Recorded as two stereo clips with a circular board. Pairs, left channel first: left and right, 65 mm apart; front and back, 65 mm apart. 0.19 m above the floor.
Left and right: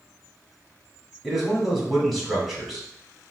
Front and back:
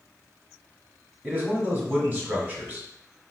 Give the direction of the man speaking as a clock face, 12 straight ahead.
6 o'clock.